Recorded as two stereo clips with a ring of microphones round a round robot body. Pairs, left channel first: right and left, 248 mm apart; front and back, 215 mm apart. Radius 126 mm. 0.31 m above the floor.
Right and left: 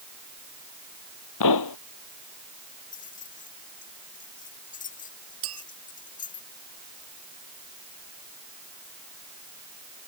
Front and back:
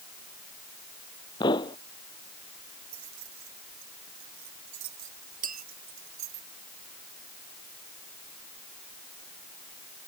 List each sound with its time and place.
1.4 s a pop: 75° right
2.9 s keys jangling: 150° right
5.4 s a clink: 130° left